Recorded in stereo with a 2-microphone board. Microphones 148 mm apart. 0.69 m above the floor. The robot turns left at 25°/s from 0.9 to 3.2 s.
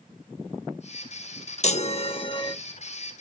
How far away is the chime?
About 0.6 m.